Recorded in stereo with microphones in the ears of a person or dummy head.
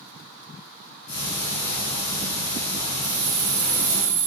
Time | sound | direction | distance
1.1 | ticking | 65° left (ahead or behind) | 1.8 m
3.0 | keys jangling | 50° right (ahead or behind) | 0.7 m